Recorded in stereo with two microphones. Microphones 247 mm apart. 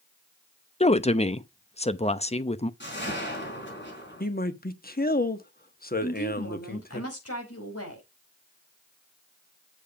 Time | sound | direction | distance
0.8 | a woman speaking | 25° left (ahead or behind) | 0.7 m
2.8 | a whoosh | 50° left (ahead or behind) | 5 m
4.2 | a man speaking | 40° left (ahead or behind) | 1.2 m
6.0 | a woman speaking | 75° left (ahead or behind) | 4.5 m